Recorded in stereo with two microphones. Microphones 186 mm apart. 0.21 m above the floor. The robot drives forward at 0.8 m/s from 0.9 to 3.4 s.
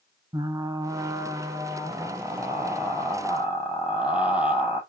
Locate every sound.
0.3 s frying: 20° right (ahead or behind), 0.9 m; by 4.8 s 5° right (ahead or behind), 2.5 m